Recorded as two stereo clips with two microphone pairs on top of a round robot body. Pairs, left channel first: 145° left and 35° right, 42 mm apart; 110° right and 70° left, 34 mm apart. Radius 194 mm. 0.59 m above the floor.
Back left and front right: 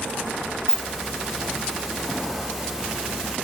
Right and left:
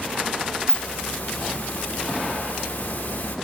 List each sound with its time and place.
0.7 s a hiss: 110° right, 2.5 m